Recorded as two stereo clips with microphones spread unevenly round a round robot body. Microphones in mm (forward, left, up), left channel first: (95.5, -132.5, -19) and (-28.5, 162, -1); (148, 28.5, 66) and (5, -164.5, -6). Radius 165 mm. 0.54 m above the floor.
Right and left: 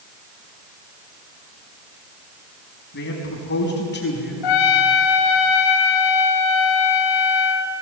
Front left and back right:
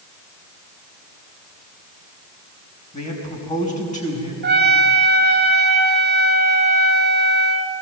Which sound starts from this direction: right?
A trumpet, at 4.4 s.